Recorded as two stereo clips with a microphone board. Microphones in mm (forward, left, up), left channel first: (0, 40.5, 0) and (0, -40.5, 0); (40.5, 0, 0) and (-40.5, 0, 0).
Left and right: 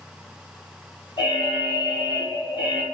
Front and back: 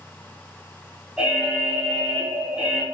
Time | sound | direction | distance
1.2 | an alarm | 100° left | 1.0 m